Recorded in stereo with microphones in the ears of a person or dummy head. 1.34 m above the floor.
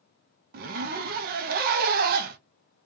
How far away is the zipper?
About 0.5 m.